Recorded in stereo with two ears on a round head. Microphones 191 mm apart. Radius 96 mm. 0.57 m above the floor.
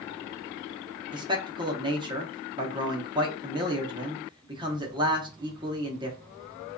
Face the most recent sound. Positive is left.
turn(degrees=-20)  # may be behind; listen again after turning